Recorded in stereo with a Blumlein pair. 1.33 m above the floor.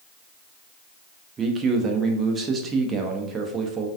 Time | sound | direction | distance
1.4 | a man speaking | 20° right | 0.6 m